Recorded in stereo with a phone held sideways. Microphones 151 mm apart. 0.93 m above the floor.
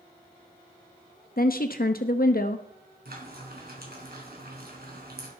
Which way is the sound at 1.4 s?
70° left (ahead or behind).